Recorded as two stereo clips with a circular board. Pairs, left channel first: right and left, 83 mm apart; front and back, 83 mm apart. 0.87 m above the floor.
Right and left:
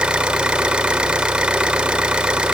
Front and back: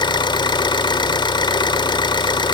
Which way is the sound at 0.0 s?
10° left.